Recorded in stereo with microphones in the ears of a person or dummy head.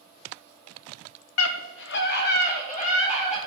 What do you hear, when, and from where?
1.4 s a scream: 80° left, 0.8 m; by 3.4 s 30° left (ahead or behind), 1.8 m